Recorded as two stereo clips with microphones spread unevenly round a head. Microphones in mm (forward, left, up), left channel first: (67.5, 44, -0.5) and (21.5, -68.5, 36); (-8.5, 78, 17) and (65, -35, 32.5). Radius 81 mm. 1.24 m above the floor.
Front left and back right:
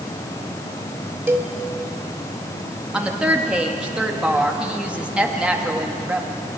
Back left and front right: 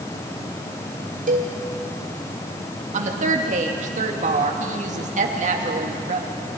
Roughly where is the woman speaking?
Ahead right.